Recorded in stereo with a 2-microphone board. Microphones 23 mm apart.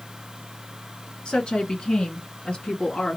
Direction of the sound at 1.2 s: 40° left (ahead or behind).